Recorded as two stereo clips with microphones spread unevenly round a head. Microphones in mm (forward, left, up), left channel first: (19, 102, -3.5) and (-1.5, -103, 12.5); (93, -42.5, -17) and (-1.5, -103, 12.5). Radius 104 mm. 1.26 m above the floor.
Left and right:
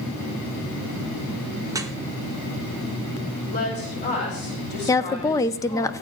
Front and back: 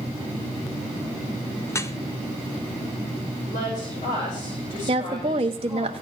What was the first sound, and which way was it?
Dripping, 20° right.